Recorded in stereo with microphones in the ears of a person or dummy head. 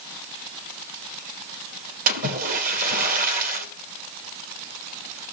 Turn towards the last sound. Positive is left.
turn(degrees=-45)  # may be behind; listen again after turning